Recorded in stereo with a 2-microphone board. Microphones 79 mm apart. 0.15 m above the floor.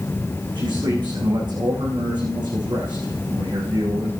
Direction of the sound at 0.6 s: 75° right (ahead or behind).